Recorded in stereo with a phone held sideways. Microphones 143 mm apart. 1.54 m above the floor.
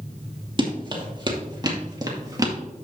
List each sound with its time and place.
0.6 s running footsteps: 35° right (ahead or behind), 2.5 m; by 2.5 s 25° right (ahead or behind), 1.9 m